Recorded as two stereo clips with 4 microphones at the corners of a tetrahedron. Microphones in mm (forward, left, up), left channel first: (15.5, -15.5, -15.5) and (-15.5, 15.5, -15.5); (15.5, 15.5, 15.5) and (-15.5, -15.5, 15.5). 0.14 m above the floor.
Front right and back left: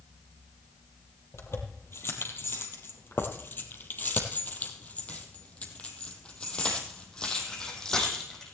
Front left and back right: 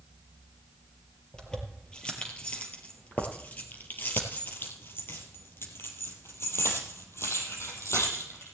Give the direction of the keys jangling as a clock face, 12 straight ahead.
1 o'clock.